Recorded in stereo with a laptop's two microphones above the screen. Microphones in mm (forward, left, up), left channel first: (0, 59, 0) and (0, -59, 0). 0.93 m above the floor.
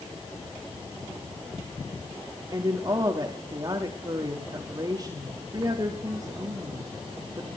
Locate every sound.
2.5 s a woman speaking: 35° right (ahead or behind), 1.3 m